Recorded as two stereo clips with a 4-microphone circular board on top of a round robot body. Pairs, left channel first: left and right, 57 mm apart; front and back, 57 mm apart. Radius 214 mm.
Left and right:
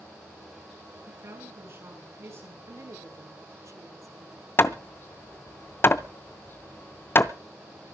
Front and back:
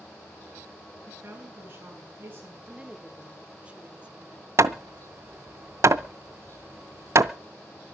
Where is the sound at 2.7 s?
115° right, 2 m.